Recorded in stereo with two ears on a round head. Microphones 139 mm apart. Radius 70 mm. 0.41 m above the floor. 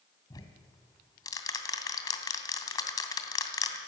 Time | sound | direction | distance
0.3 | ticking | 25° left (ahead or behind) | 2.5 m